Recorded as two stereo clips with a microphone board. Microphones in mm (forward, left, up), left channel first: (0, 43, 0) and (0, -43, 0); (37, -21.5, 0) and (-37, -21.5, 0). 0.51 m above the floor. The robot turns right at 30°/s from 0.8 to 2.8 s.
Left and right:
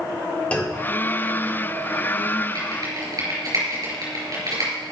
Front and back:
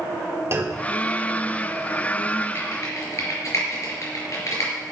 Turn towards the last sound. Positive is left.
turn(degrees=-50)